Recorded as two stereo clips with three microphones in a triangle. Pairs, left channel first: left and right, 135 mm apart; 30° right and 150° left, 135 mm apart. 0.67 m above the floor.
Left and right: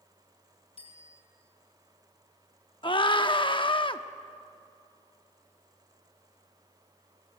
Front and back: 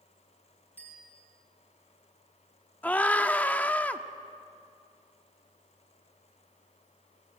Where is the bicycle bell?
45° left, 6.5 m.